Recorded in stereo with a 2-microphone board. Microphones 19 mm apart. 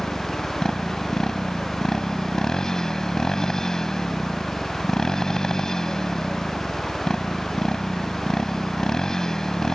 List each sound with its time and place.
0.0 s a motorcycle: 35° left (ahead or behind)